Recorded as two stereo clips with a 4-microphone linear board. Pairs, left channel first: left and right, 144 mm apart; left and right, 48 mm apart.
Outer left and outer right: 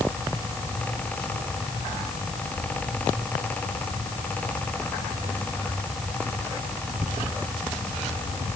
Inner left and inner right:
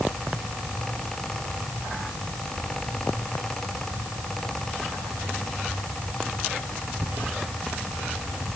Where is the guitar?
I don't hear a guitar.